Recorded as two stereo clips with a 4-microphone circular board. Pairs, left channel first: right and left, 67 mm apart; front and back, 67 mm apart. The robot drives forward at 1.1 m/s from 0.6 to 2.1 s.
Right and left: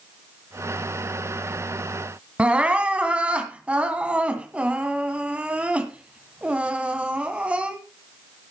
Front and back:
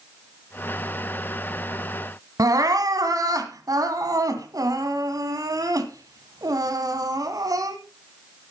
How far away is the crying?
About 1.6 m.